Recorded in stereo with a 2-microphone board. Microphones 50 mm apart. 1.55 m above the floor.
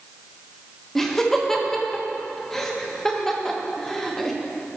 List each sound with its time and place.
0.9 s laughter: 10° left (ahead or behind), 1.2 m